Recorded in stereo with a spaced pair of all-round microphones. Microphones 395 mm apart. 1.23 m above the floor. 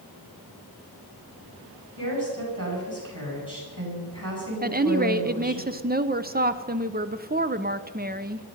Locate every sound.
2.0 s a woman speaking: 55° right (ahead or behind), 7.5 m
4.6 s a woman speaking: 25° right (ahead or behind), 0.7 m